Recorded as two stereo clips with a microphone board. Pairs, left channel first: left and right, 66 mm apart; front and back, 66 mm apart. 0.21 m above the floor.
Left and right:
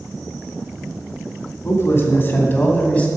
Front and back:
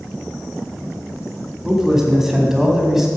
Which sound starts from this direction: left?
A man speaking, at 1.6 s.